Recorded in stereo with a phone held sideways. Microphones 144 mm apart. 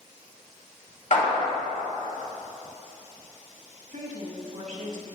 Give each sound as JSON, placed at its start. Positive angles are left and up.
{"t": 1.1, "sound": "a clap", "side_deg": 65, "distance_m": 2.5}
{"t": 3.9, "sound": "a woman speaking", "side_deg": -70, "distance_m": 1.9}